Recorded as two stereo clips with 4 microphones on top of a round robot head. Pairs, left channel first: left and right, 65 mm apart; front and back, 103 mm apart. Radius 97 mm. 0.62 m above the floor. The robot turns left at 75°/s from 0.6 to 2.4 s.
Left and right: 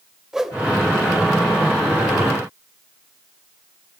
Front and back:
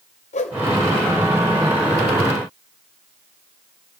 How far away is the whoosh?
About 1.0 m.